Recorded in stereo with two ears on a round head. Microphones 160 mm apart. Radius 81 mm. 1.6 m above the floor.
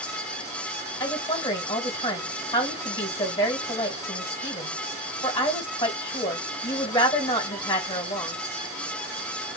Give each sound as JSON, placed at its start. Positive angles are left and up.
{"t": 1.0, "sound": "a woman speaking", "side_deg": 30, "distance_m": 2.0}